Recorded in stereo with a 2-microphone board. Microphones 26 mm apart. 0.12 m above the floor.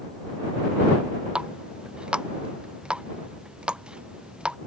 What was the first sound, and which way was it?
A running tap, 40° right (ahead or behind).